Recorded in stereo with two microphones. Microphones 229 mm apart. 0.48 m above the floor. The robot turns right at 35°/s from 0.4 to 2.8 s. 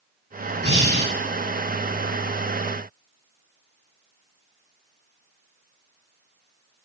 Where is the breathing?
50° left (ahead or behind), 1.2 m.